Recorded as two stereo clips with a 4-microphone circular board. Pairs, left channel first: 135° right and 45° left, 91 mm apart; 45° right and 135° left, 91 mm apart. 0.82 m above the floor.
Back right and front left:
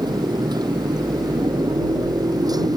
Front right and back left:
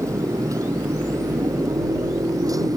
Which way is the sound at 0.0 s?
80° left.